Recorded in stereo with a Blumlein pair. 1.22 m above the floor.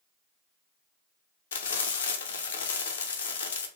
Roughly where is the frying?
Ahead left.